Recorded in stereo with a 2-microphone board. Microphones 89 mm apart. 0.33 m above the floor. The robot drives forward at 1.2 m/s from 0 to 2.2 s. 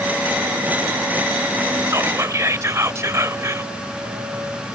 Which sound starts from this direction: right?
Whispering, at 1.9 s.